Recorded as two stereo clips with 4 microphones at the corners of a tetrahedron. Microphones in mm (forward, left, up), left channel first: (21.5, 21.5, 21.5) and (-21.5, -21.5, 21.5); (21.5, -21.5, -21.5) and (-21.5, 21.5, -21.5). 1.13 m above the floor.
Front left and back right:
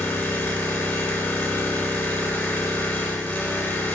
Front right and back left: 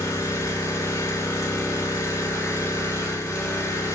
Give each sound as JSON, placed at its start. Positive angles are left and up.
{"t": 0.0, "sound": "an engine running", "azimuth_deg": -5, "distance_m": 3.0}